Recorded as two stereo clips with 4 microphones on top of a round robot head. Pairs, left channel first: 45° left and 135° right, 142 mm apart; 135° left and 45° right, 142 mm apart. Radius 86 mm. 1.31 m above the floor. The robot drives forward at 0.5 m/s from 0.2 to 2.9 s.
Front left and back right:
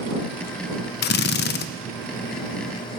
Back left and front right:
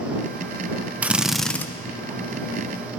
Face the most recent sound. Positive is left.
turn(degrees=130)